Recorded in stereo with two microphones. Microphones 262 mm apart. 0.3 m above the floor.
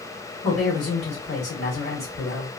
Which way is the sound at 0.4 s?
50° left (ahead or behind).